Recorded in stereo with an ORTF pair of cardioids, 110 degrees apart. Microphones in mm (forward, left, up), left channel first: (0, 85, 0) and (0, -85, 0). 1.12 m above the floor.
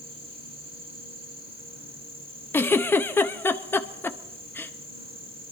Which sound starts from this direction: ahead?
A giggle, at 2.5 s.